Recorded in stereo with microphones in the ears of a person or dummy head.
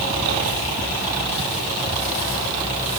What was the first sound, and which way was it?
Only background noise.